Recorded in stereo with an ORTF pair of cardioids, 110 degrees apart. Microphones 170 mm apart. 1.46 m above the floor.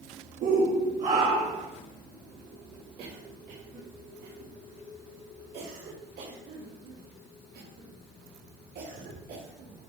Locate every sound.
0.4 s a shout: 55° right, 1.8 m; by 1.7 s 45° right, 3 m
3.0 s a cough: 65° right, 4 m